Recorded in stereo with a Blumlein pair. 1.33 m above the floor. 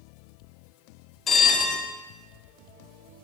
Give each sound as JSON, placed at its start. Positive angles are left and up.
{"t": 1.3, "sound": "a bell", "azimuth_deg": 20, "distance_m": 0.6}